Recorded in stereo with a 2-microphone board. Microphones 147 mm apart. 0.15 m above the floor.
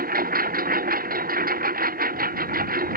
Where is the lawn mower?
80° right.